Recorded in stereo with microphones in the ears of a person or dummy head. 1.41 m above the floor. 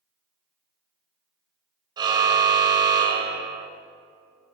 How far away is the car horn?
About 2.5 m.